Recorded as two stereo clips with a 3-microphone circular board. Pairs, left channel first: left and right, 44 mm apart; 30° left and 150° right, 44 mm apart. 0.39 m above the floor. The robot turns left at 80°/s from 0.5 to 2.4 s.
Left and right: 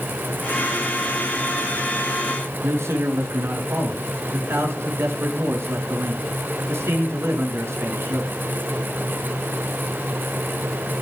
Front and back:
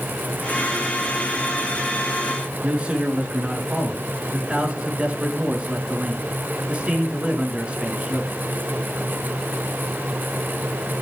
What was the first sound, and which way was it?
A man speaking, 85° right.